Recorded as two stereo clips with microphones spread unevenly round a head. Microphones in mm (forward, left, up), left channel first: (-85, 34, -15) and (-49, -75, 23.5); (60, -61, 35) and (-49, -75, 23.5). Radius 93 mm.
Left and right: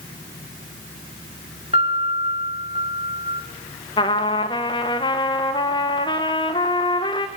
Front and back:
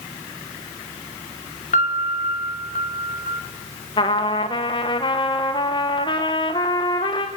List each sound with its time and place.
1.7 s a piano: 10° right, 2.5 m
4.0 s a trumpet: 65° left, 1.1 m